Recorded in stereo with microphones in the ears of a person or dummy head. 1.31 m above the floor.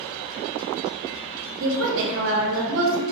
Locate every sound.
1.6 s a woman speaking: 65° right (ahead or behind), 0.6 m